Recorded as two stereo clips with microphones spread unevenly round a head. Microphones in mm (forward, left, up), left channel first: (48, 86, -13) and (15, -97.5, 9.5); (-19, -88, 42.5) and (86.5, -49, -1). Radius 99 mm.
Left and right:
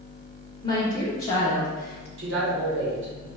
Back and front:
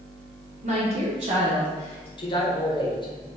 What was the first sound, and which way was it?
A woman speaking, 15° left.